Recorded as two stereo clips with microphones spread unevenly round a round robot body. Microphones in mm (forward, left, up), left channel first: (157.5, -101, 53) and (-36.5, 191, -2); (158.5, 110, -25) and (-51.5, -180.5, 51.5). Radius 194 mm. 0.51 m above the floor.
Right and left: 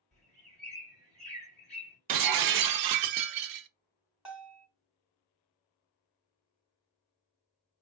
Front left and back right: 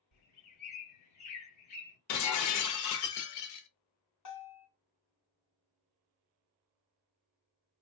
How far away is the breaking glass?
About 0.5 m.